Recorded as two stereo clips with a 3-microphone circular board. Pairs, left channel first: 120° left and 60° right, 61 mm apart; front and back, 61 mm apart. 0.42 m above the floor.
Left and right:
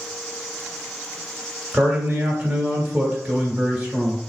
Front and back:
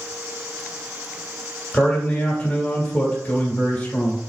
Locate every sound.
1.7 s a man speaking: 15° right, 1.5 m